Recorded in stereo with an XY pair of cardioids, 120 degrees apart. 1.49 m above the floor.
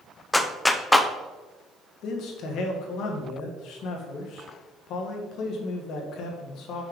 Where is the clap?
10° left, 0.5 m.